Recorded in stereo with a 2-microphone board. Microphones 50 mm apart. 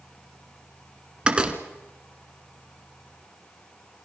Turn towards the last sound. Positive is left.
turn(degrees=-20)  # may be behind; listen again after turning